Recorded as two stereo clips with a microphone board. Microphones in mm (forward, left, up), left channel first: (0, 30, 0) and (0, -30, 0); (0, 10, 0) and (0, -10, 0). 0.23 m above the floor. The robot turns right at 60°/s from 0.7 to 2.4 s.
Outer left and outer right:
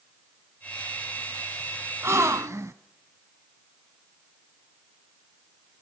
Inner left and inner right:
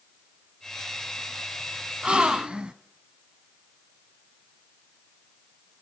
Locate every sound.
2.0 s a gasp: 45° right (ahead or behind), 1.0 m; by 2.7 s 55° right (ahead or behind), 1.0 m